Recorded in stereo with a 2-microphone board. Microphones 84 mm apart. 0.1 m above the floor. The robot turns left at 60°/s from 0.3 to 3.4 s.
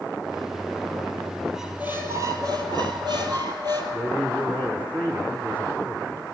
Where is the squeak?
5° right, 1.7 m; by 3.8 s 115° right, 1.7 m.